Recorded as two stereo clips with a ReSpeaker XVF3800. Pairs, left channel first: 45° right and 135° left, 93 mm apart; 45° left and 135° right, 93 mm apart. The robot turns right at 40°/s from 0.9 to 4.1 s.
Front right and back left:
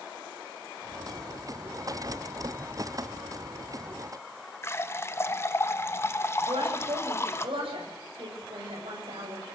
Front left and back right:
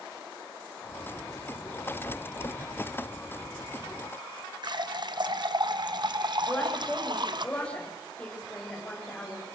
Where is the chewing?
I don't hear chewing.